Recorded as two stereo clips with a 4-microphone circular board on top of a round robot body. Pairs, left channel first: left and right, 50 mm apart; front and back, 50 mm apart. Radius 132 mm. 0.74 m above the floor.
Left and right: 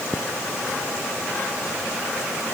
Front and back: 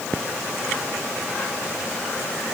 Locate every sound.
Only background noise.